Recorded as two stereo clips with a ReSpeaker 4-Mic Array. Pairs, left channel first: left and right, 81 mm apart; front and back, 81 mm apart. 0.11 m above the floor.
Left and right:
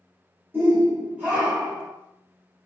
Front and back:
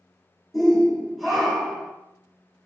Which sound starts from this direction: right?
A shout, at 0.5 s.